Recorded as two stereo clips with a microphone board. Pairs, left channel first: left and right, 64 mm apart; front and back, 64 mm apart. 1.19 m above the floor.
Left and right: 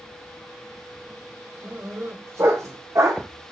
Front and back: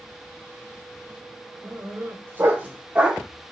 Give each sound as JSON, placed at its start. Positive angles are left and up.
{"t": 1.6, "sound": "a dog barking", "azimuth_deg": -135, "distance_m": 1.9}